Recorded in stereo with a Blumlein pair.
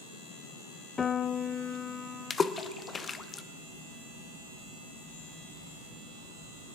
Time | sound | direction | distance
1.0 | a piano | 15° left | 0.5 m
2.3 | a splash | 15° left | 0.6 m